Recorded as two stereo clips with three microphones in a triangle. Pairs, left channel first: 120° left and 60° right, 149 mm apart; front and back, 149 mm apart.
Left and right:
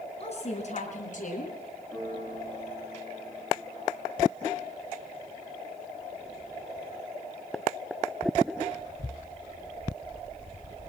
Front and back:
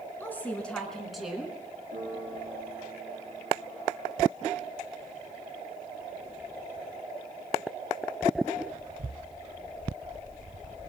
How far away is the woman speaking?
About 4.5 m.